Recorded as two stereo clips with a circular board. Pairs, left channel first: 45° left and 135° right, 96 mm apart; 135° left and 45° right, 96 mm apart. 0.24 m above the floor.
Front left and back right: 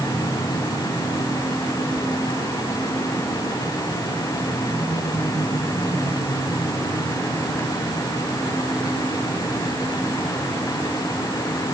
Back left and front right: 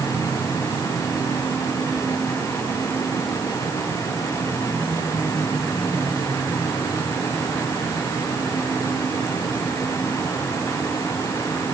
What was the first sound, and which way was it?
Only background noise.